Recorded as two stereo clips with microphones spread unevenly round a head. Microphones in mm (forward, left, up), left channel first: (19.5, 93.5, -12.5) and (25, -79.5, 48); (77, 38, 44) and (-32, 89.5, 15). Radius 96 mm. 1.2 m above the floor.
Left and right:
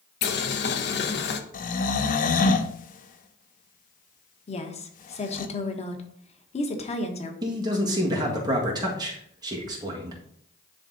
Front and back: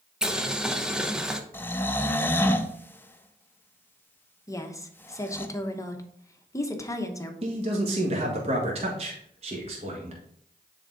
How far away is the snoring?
About 0.7 m.